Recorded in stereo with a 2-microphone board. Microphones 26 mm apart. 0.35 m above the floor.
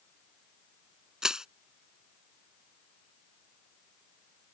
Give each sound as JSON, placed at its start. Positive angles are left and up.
{"t": 1.2, "sound": "crushing", "side_deg": -25}